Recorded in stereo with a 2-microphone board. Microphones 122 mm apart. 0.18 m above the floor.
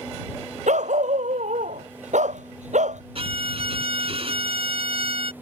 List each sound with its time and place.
0.7 s a dog barking: 80° right
3.1 s a violin: 55° right (ahead or behind)